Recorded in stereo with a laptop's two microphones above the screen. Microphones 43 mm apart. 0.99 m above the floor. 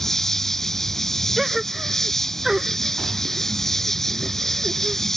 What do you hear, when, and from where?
0.0 s an insect: 5° left (ahead or behind)
1.4 s a gasp: 5° right (ahead or behind)